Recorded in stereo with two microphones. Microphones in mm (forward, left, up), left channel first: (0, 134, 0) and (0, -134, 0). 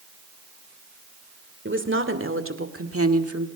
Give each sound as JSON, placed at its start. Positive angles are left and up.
{"t": 1.6, "sound": "a woman speaking", "side_deg": -50, "distance_m": 2.5}